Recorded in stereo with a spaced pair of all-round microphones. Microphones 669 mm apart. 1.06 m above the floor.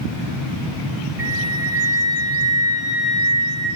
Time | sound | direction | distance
1.2 | a flute | 55° right (ahead or behind) | 1.2 m